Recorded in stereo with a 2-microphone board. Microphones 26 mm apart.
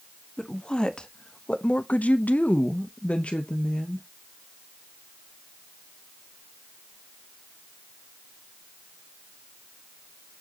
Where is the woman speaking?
30° left (ahead or behind), 1.4 m; by 4.1 s 40° left (ahead or behind), 1.4 m.